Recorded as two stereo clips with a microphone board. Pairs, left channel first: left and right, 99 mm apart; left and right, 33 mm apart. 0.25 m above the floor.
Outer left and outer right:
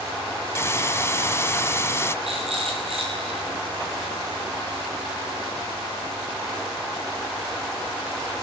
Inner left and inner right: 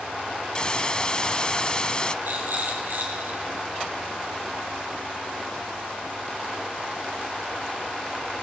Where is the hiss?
25° left (ahead or behind), 1.3 m.